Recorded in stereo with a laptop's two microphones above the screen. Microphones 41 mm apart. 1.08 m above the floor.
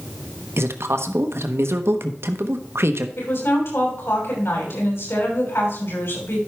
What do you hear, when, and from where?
0.6 s a man speaking: 80° right, 1.1 m
3.2 s a woman speaking: 80° left, 6 m